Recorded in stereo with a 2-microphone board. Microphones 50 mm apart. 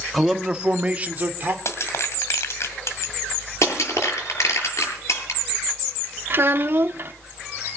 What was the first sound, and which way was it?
A man speaking, 5° left (ahead or behind).